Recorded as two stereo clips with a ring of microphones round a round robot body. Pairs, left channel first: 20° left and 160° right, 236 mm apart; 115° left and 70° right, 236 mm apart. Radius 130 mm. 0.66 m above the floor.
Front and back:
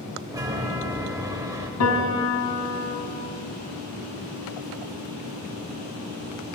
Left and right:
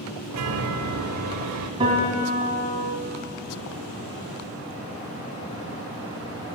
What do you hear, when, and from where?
0.3 s a chime: 80° right, 0.6 m
1.8 s a piano: straight ahead, 1.9 m